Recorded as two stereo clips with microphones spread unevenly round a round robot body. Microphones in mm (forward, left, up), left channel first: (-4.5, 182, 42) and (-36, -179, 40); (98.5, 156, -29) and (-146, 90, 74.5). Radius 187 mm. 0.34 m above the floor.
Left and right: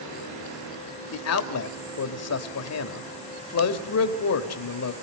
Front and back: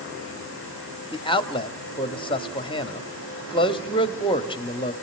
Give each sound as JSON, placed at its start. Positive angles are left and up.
{"t": 1.1, "sound": "a man speaking", "azimuth_deg": 55, "distance_m": 1.6}